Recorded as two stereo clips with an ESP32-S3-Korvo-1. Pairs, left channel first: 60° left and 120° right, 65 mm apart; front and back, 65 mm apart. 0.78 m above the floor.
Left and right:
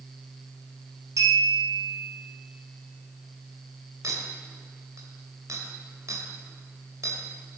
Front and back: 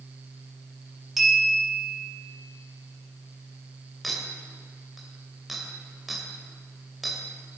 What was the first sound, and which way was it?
A clink, 95° right.